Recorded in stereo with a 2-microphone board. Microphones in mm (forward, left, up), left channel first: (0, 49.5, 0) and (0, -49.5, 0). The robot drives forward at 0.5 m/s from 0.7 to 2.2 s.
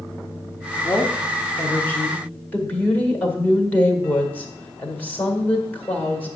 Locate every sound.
0.8 s a woman speaking: 25° left (ahead or behind), 1.3 m; by 6.4 s 20° left (ahead or behind), 1.8 m